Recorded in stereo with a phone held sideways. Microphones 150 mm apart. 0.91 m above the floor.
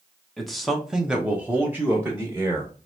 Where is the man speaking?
Centre (ahead or behind), 1.1 m; by 2.7 s 15° right (ahead or behind), 1.4 m.